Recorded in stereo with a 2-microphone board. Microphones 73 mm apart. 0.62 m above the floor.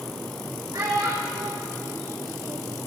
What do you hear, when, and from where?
0.7 s a child speaking: 60° right (ahead or behind), 1.8 m; by 2.8 s 55° right (ahead or behind), 1.3 m